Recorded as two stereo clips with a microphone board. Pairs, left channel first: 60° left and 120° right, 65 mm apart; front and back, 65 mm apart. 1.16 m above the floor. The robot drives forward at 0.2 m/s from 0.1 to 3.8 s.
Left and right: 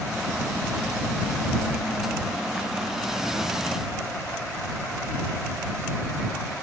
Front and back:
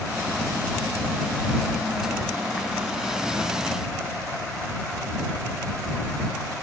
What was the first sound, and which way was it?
Only background noise.